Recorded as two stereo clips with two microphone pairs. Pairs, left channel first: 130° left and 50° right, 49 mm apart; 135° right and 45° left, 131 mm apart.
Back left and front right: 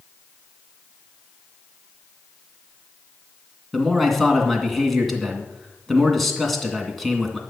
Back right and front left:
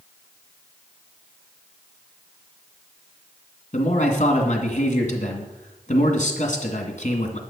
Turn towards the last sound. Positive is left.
turn(degrees=-140)